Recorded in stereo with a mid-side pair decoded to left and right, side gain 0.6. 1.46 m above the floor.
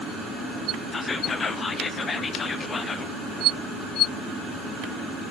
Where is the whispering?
30° left, 0.6 m.